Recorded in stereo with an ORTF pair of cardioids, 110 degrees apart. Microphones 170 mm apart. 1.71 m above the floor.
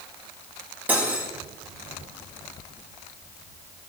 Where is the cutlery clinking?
10° right, 3 m.